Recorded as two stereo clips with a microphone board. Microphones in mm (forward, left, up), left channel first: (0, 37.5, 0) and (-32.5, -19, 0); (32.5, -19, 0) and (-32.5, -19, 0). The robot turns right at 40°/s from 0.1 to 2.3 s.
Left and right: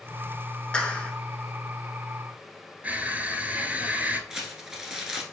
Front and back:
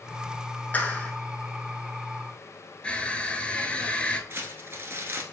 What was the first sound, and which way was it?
A clap, 10° left.